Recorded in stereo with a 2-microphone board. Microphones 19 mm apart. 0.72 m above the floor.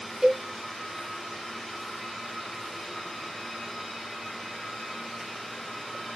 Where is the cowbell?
30° right (ahead or behind), 1.5 m.